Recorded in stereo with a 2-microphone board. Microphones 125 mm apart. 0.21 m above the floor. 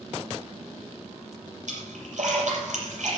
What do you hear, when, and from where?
1.7 s a splash: 75° right (ahead or behind), 5.5 m